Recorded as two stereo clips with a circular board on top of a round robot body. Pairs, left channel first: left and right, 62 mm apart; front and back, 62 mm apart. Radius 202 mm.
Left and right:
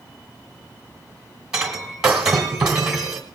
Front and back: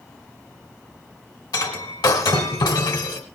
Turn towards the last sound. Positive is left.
turn(degrees=-10)